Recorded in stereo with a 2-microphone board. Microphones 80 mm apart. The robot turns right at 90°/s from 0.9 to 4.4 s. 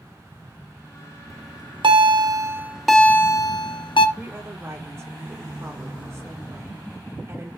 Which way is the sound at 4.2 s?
10° right (ahead or behind).